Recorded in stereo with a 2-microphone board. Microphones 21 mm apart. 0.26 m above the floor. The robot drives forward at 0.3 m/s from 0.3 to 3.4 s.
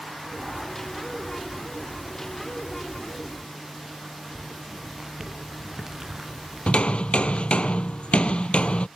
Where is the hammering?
65° left (ahead or behind).